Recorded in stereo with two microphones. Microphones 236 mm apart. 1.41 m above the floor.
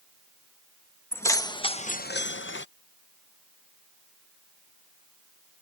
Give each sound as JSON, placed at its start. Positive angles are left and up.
{"t": 1.1, "sound": "keys jangling", "side_deg": 10}